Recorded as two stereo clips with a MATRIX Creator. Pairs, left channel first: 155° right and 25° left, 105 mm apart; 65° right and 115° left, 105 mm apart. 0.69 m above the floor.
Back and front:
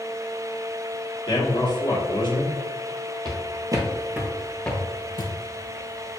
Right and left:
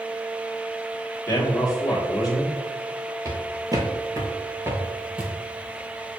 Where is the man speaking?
120° right, 1.3 m.